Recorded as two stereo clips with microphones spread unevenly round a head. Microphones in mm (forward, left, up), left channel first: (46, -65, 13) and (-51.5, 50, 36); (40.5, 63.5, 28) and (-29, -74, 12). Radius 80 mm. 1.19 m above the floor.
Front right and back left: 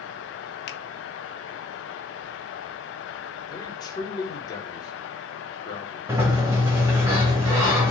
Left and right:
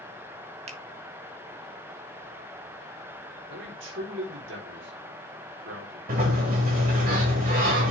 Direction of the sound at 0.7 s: 65° right.